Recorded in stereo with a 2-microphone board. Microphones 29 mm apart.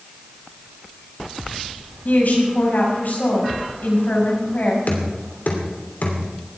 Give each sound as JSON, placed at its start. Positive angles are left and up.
{"t": 2.0, "sound": "a woman speaking", "side_deg": 75, "distance_m": 5.0}
{"t": 4.9, "sound": "knocking", "side_deg": 80, "distance_m": 3.0}